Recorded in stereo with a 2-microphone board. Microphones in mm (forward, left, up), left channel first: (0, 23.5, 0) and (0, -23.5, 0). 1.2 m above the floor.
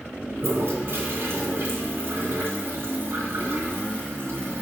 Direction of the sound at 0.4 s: 50° right (ahead or behind).